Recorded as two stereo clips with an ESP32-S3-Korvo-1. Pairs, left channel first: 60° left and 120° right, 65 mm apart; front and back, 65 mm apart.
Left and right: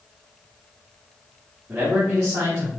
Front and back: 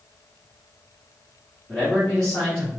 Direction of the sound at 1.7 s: 75° right.